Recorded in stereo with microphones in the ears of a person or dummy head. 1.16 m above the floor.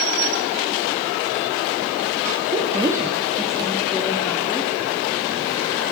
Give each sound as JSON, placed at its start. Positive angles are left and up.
{"t": 2.5, "sound": "a woman speaking", "side_deg": -25, "distance_m": 1.7}